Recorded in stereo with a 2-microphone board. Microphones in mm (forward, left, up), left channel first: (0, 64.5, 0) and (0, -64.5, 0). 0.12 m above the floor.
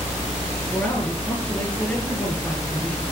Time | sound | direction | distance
0.7 | a man speaking | 10° left (ahead or behind) | 2 m